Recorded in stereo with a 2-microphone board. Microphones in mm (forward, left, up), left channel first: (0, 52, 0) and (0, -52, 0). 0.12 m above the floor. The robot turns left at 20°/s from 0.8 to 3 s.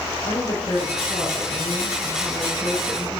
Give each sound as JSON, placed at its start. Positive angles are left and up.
{"t": 0.2, "sound": "a woman speaking", "azimuth_deg": 65, "distance_m": 5.0}